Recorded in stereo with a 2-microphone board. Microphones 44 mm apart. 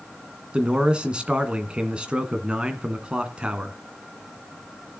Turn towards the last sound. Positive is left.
turn(degrees=-25)  # may be behind; listen again after turning